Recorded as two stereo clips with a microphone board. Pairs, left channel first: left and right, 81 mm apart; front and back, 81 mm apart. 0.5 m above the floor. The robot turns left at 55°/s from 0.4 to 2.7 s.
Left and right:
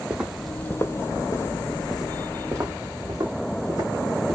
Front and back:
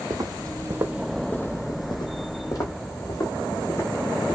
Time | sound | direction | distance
0.1 | footsteps | 165° right | 0.7 m